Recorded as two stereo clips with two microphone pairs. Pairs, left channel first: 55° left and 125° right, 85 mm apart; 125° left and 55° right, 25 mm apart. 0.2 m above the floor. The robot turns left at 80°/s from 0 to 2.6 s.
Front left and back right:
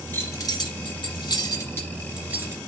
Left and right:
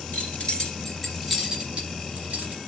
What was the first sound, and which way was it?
Keys jangling, 120° left.